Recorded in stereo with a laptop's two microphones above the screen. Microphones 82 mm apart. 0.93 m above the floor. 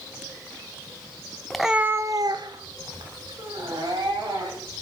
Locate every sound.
1.5 s a cat meowing: 5° left (ahead or behind), 0.8 m; by 4.8 s 65° right (ahead or behind), 3.5 m